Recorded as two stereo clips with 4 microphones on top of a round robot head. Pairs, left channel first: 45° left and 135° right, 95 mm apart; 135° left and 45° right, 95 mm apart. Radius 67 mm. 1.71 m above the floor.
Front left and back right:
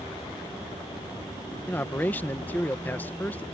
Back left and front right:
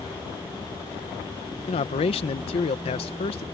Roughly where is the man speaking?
Behind left.